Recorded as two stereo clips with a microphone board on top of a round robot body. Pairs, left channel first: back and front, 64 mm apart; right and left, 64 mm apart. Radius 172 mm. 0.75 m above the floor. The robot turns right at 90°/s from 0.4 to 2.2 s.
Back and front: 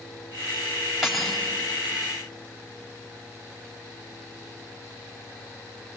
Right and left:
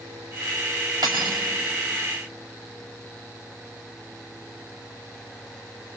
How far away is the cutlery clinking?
About 3 m.